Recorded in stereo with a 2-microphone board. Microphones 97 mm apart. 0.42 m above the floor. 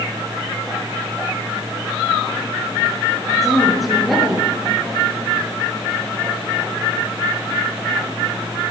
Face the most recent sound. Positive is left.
turn(degrees=0)  # may be behind; listen again after turning